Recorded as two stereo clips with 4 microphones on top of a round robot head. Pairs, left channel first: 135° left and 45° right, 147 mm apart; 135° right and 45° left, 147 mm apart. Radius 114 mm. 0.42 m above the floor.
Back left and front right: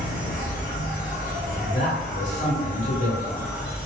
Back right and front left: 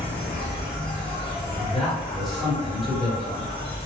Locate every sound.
0.0 s an insect: 170° left, 1.0 m
1.6 s a man speaking: 135° left, 1.9 m